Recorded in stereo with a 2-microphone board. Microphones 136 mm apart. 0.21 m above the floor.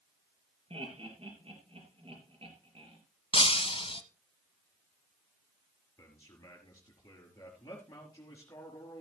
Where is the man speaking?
20° left (ahead or behind), 4 m.